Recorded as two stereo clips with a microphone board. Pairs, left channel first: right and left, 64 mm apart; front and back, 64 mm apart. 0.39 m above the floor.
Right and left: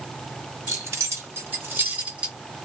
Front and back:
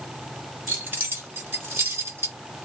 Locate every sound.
0.7 s keys jangling: 125° left, 1.5 m; by 2.4 s 160° left, 0.9 m